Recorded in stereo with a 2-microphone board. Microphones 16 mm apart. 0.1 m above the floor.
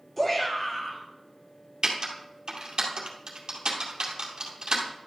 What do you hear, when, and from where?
0.2 s a shout: 15° left (ahead or behind), 2 m
1.8 s typing on a keyboard: 60° right (ahead or behind), 2 m